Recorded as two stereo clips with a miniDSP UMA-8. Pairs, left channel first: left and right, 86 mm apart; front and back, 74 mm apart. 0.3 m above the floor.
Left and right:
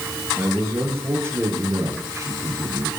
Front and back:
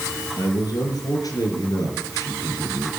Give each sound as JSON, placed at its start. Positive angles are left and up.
{"t": 0.4, "sound": "a man speaking", "azimuth_deg": -25, "distance_m": 4.0}